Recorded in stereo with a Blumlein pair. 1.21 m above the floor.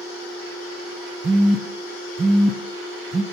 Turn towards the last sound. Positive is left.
turn(degrees=-15)